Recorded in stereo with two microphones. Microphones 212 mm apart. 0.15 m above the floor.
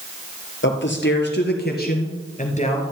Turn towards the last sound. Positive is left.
turn(degrees=30)  # may be behind; listen again after turning